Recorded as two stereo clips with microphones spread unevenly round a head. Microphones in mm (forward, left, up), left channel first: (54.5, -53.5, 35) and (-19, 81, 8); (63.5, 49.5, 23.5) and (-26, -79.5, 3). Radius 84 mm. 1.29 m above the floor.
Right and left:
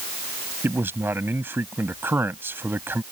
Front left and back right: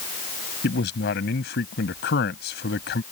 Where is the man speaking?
40° left.